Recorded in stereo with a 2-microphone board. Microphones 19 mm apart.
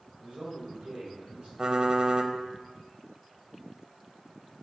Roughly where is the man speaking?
Right.